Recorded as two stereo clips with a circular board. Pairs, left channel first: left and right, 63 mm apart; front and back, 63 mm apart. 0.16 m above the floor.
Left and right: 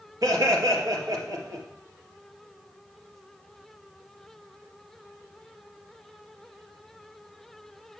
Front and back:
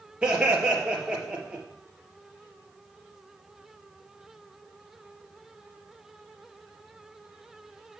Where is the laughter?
105° right, 2.5 m.